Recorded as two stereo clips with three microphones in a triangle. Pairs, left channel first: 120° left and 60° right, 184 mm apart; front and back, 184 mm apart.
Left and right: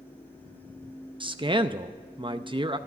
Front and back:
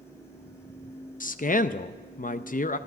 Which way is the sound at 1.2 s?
10° right.